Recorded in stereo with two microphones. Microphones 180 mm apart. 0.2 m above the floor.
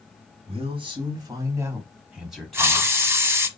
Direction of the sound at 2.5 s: 15° right (ahead or behind).